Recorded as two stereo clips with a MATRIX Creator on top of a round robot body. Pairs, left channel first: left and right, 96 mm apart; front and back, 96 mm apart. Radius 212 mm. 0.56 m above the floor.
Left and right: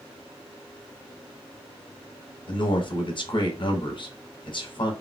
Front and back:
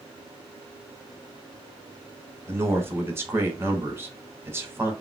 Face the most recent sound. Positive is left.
turn(degrees=115)